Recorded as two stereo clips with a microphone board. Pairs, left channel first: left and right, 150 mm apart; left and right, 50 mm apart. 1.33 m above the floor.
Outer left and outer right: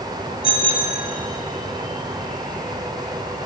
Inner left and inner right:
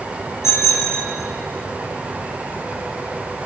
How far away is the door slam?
I don't hear a door slam.